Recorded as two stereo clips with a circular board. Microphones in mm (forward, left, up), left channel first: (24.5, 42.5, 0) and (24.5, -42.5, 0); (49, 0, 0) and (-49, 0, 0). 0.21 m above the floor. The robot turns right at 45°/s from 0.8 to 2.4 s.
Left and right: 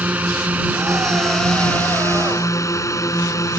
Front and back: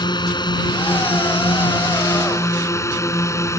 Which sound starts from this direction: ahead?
A drone, at 0.0 s.